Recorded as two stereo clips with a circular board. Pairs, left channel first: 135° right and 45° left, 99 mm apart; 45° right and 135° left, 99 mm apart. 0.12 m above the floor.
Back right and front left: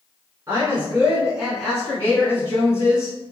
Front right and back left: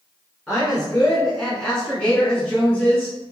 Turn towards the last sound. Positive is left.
turn(degrees=-120)